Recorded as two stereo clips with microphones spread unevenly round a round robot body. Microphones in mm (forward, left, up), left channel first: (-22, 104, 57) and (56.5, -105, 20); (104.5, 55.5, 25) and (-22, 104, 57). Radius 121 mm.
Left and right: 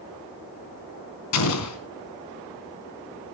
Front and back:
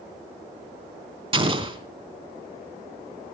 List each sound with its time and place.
1.3 s an explosion: 105° left, 3 m